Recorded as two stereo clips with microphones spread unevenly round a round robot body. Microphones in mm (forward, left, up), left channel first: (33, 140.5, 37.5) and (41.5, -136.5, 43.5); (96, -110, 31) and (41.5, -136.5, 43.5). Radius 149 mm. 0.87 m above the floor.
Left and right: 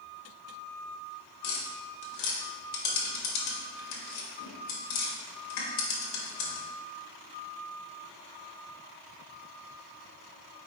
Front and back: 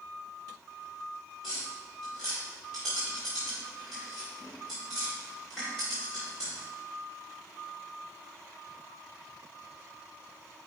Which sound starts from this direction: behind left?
Tapping, at 1.4 s.